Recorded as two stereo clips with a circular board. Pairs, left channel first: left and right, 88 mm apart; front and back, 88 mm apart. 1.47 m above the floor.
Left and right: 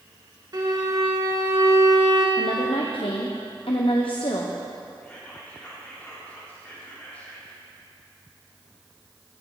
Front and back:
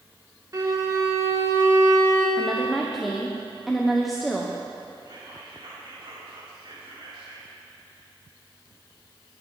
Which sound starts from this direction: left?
A woman speaking, at 2.4 s.